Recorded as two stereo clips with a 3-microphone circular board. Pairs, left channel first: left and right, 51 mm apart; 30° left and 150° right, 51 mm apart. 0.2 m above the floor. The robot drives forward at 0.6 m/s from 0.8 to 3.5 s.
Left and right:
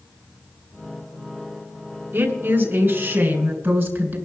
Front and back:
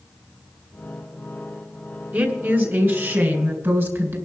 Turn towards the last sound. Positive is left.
turn(degrees=-135)